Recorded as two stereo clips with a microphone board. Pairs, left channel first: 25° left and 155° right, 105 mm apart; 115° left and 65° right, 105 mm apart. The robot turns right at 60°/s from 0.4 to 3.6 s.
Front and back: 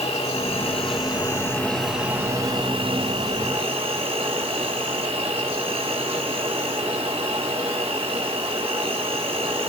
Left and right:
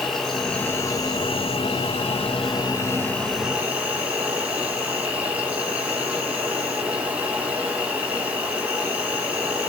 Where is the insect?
25° left, 5.5 m; by 9.7 s 145° right, 5.5 m.